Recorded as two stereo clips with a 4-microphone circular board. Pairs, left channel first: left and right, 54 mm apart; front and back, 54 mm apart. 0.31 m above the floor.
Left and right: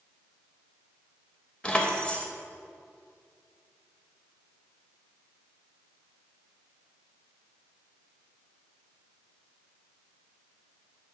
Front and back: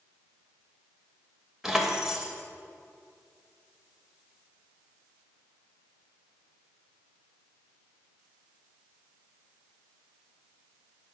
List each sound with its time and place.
1.6 s keys jangling: 115° left, 0.7 m